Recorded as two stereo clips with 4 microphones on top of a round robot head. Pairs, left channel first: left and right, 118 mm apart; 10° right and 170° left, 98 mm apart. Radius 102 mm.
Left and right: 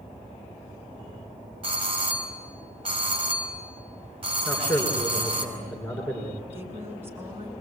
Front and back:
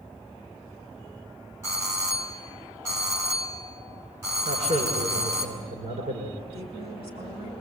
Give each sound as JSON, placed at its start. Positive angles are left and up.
{"t": 1.6, "sound": "a doorbell", "azimuth_deg": -125, "distance_m": 5.5}
{"t": 4.5, "sound": "a man speaking", "azimuth_deg": 170, "distance_m": 6.5}
{"t": 6.5, "sound": "a woman speaking", "azimuth_deg": -160, "distance_m": 7.5}